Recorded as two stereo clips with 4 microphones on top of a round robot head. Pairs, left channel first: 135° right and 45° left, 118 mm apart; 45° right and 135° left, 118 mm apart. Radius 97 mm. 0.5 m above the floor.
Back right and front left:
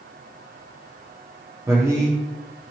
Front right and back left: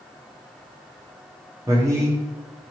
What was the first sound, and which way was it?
A man speaking, 90° left.